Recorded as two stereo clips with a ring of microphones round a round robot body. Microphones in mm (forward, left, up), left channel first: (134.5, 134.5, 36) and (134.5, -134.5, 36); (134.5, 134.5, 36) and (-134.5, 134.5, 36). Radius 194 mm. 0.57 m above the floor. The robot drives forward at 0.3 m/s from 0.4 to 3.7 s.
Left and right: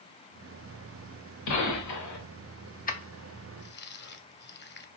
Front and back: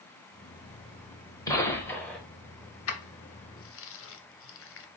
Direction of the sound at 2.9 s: 30° left.